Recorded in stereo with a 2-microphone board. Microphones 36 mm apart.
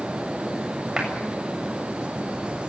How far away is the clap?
About 7 m.